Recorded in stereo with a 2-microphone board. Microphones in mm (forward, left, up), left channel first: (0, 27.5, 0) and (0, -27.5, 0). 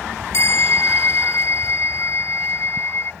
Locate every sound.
0.3 s a bell: 50° left (ahead or behind)